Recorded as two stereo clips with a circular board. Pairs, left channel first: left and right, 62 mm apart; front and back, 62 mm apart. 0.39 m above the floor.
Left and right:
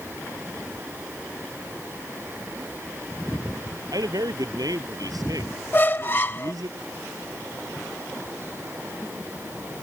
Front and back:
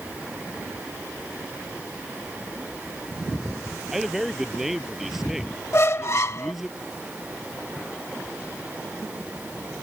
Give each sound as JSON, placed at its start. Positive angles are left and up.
{"t": 3.9, "sound": "a man speaking", "azimuth_deg": -95}
{"t": 5.7, "sound": "a squeak", "azimuth_deg": 40}